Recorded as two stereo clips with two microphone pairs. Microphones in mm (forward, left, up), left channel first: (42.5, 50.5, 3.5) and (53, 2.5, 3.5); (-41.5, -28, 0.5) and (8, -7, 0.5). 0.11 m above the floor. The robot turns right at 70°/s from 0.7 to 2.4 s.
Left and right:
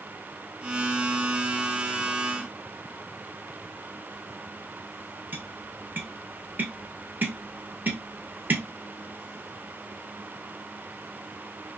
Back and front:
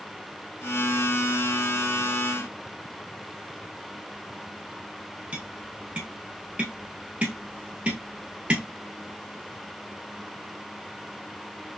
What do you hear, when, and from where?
5.3 s tapping: 40° right, 1.0 m